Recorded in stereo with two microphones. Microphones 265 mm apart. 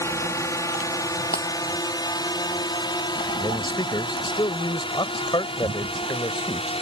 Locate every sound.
0.0 s a drone: 10° left (ahead or behind); by 6.8 s 20° left (ahead or behind)
1.3 s breaking glass: 35° left (ahead or behind)
3.4 s a man speaking: 15° left (ahead or behind)